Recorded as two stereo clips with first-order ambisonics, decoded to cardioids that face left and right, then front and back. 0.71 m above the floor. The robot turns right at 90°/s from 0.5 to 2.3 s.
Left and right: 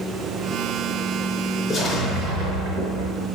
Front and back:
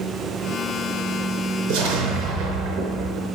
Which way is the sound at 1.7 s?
170° left.